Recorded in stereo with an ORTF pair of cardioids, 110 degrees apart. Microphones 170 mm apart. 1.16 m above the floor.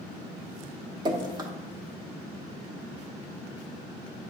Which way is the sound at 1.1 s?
25° right.